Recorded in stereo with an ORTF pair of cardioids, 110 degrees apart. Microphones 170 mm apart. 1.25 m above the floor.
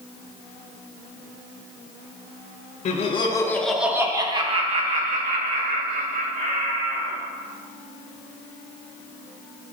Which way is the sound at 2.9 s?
45° left.